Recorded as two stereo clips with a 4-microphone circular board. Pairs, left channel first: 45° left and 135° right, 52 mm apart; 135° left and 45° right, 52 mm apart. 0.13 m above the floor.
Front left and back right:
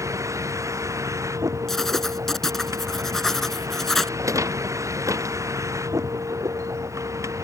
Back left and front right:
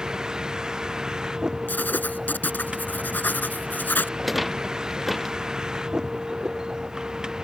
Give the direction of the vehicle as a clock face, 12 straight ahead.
4 o'clock.